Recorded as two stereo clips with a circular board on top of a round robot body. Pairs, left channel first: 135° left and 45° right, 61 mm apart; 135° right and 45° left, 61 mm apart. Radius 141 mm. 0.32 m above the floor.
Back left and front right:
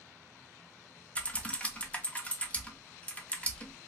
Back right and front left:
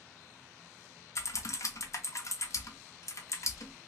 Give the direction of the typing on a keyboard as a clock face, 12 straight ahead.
5 o'clock.